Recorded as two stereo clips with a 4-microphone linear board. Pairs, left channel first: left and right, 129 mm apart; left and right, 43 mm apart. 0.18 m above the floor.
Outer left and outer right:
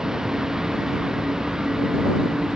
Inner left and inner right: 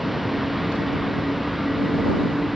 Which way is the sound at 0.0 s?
5° right (ahead or behind).